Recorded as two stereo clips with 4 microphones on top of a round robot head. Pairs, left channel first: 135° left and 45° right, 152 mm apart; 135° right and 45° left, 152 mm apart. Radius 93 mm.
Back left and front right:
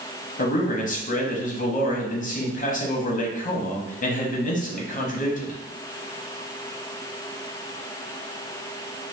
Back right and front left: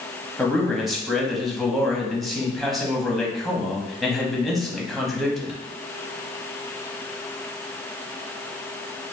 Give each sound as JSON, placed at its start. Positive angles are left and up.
{"t": 0.4, "sound": "a man speaking", "azimuth_deg": 135, "distance_m": 1.1}